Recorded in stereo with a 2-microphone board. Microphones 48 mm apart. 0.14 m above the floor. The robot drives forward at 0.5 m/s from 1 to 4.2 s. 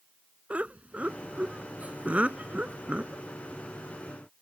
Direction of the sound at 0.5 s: 30° right (ahead or behind).